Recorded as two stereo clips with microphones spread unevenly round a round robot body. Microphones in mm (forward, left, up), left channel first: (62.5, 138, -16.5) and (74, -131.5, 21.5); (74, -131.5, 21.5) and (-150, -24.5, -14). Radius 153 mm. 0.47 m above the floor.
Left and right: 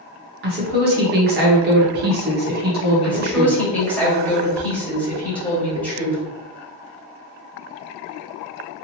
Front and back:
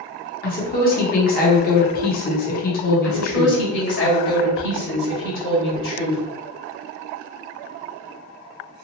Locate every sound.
0.4 s a woman speaking: 55° right, 0.8 m
3.0 s a woman speaking: 15° left, 1.7 m